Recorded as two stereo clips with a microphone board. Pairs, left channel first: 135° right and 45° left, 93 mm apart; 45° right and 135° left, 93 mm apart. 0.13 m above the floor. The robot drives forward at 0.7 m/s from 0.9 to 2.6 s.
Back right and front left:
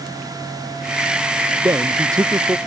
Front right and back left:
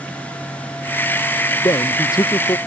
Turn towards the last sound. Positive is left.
turn(degrees=-5)